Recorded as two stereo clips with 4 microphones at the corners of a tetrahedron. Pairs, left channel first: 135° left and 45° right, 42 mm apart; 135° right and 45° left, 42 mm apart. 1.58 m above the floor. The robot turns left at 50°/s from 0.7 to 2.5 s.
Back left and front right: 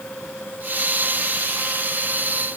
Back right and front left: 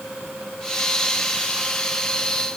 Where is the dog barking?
No dog barking in this recording.